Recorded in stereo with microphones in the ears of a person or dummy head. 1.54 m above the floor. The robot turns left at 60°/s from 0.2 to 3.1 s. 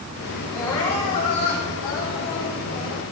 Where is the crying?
175° left, 7 m; by 3.0 s 25° left, 7 m.